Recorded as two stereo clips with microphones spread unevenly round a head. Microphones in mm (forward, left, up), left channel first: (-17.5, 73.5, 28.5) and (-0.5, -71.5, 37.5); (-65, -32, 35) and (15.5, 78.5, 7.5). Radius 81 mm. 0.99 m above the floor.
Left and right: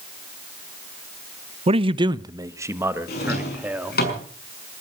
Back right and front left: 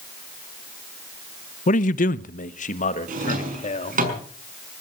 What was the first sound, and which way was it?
A man speaking, 110° right.